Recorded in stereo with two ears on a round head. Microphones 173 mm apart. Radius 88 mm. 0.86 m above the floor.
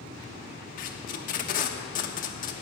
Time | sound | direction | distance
0.8 | tape being pulled | 45° left (ahead or behind) | 1.0 m